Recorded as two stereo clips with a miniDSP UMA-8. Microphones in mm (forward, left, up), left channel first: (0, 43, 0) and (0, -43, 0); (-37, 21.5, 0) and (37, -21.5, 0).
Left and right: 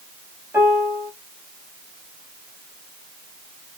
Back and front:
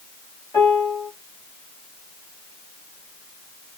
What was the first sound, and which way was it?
A piano, 155° right.